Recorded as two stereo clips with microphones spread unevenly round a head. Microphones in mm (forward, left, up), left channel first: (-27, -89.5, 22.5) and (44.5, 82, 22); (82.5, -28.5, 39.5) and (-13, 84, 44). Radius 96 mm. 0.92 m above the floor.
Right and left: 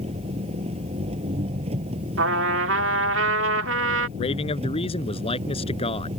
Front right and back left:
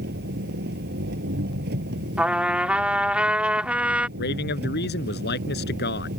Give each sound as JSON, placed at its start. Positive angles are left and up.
{"t": 0.0, "sound": "an engine running", "azimuth_deg": 130}
{"t": 2.2, "sound": "a trumpet", "azimuth_deg": 50}
{"t": 4.2, "sound": "a man speaking", "azimuth_deg": -50}